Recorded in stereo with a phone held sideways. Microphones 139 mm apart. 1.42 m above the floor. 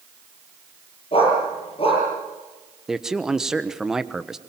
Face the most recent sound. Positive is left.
turn(degrees=-5)  # may be behind; listen again after turning